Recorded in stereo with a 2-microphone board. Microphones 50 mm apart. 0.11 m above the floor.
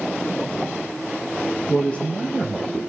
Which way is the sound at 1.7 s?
20° left (ahead or behind).